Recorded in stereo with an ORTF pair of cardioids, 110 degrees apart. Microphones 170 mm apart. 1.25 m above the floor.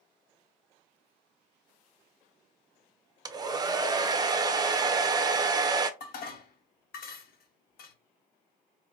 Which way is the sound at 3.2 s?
25° right.